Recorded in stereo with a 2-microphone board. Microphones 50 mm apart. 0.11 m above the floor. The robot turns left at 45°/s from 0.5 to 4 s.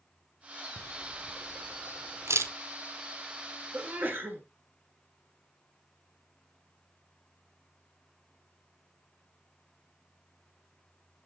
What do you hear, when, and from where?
0.8 s a camera shutter: 20° right (ahead or behind), 0.8 m; by 2.5 s 70° right (ahead or behind), 0.8 m
3.7 s a sneeze: 45° right (ahead or behind), 1.6 m; by 4.4 s 40° right (ahead or behind), 1.6 m